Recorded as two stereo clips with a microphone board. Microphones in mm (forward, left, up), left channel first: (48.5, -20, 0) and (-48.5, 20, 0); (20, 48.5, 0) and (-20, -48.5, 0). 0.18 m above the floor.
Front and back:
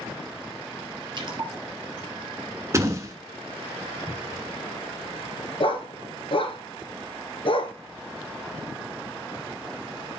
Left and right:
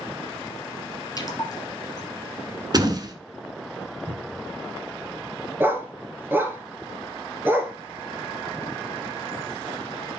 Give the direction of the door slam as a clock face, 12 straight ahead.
5 o'clock.